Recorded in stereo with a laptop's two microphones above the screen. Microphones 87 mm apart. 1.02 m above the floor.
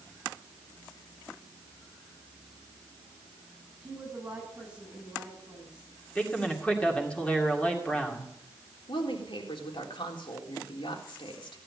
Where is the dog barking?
I don't hear a dog barking.